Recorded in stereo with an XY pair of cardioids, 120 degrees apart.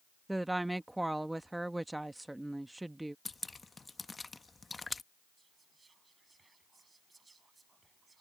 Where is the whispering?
20° right.